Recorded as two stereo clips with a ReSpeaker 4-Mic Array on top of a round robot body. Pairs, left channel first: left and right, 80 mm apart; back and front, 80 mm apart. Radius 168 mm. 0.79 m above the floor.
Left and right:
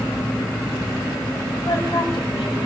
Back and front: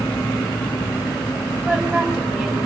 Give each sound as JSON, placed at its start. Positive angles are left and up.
{"t": 1.6, "sound": "a woman speaking", "azimuth_deg": 70, "distance_m": 7.0}